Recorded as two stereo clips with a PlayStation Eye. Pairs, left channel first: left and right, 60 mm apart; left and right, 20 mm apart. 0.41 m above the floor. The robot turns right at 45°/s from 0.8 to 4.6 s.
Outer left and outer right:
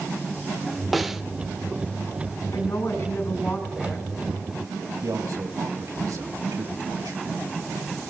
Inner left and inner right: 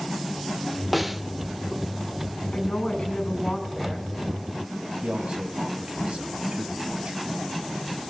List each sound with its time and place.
0.9 s a snare drum: centre (ahead or behind), 0.6 m; by 1.2 s 10° right (ahead or behind), 0.6 m
2.5 s a woman speaking: 110° left, 7 m; by 4.1 s straight behind, 7 m
5.0 s a man speaking: 70° right (ahead or behind), 2 m